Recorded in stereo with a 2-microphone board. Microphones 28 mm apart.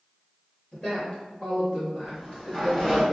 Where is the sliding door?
Centre (ahead or behind), 1.2 m.